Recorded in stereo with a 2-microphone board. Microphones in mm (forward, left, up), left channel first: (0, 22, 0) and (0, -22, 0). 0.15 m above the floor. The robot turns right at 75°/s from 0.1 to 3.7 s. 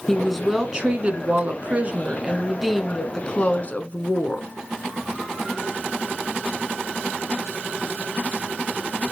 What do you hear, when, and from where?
0.1 s a woman speaking: 165° left, 1.3 m; by 4.5 s 75° left, 1.3 m